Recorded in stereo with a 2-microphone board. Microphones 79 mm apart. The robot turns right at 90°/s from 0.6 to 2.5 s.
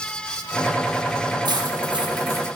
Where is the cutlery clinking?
120° right, 4 m; by 2.5 s 30° right, 4 m.